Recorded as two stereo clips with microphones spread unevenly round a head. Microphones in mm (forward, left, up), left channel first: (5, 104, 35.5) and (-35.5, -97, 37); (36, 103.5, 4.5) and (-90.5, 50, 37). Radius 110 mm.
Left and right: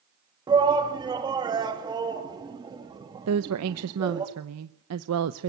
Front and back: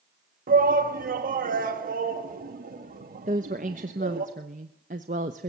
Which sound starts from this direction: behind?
A shout, at 0.5 s.